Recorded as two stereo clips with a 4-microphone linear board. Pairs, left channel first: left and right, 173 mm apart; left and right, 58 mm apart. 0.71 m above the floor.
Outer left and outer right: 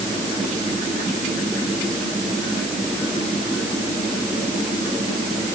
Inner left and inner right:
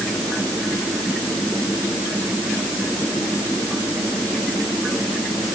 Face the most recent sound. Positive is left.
No sound to turn to.